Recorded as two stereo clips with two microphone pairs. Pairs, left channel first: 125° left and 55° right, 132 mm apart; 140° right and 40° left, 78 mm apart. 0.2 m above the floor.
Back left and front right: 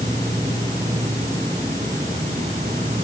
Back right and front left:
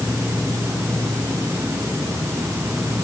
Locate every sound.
0.0 s an insect: 40° right